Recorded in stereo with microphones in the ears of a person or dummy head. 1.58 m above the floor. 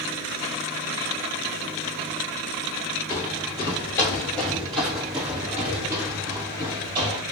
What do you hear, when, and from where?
3.1 s footsteps: 30° left (ahead or behind), 1.8 m; by 7.2 s 30° right (ahead or behind), 2.5 m